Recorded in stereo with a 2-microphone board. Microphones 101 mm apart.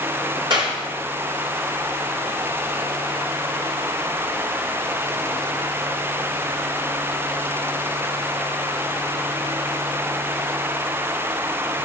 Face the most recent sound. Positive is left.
turn(degrees=-50)  # may be behind; listen again after turning